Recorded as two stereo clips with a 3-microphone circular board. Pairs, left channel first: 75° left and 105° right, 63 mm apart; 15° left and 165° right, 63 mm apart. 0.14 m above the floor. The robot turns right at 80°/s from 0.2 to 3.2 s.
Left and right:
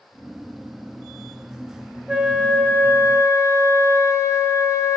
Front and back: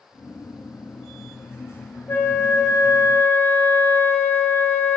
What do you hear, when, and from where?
2.1 s a flute: 30° right, 1.0 m; by 5.0 s 60° left, 1.0 m